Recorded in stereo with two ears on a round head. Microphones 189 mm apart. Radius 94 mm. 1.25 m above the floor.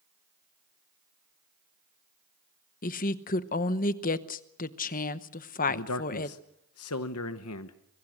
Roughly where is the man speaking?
Left.